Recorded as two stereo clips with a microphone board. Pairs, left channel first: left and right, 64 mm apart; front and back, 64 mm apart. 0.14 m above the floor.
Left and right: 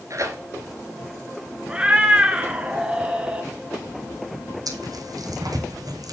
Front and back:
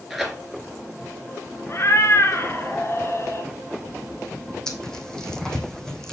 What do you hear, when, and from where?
0.1 s tearing paper: 95° right, 1.9 m
1.7 s a cat meowing: 20° right, 1.0 m
4.7 s tearing paper: 80° right, 1.7 m